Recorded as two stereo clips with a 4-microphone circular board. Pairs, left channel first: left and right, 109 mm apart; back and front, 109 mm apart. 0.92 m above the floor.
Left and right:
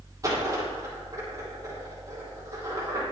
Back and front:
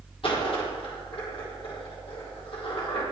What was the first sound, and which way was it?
A dropped coin, 150° right.